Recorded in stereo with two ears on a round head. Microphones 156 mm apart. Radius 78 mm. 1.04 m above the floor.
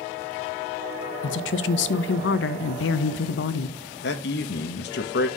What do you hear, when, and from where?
1.2 s a woman speaking: 75° left (ahead or behind), 0.6 m
4.0 s a man speaking: 65° left (ahead or behind), 1.0 m